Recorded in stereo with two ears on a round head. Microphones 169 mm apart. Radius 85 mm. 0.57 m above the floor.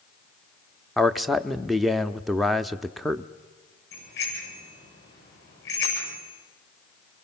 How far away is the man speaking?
About 0.6 m.